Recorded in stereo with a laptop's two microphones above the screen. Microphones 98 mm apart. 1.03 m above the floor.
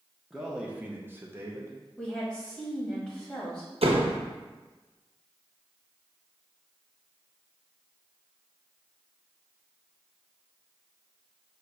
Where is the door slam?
80° right, 0.7 m.